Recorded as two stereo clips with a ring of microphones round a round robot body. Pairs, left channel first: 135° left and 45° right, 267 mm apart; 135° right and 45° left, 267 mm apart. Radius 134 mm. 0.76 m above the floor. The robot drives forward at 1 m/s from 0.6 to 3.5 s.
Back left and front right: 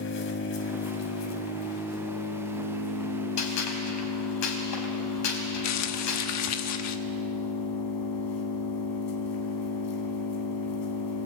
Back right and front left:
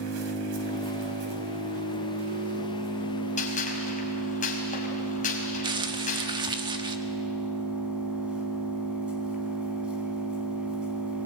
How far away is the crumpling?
About 1.4 m.